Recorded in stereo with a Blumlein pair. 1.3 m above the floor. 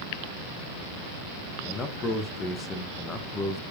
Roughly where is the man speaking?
Ahead left.